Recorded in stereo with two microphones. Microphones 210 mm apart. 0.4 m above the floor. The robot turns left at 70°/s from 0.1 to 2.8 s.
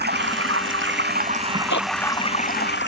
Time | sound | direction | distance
0.0 | running water | 55° right | ?
1.7 | a zipper | 70° left (ahead or behind) | ?